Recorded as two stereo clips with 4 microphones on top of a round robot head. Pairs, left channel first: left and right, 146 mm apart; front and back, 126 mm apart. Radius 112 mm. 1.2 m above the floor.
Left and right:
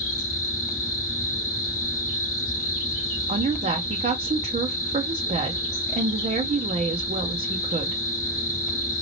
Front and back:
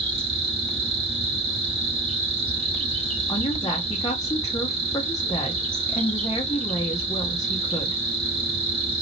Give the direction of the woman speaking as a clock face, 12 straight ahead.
2 o'clock.